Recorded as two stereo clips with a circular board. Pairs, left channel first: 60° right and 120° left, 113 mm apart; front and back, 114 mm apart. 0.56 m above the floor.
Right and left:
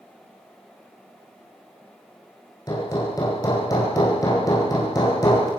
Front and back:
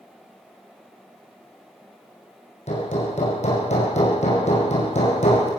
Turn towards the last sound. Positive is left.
turn(degrees=0)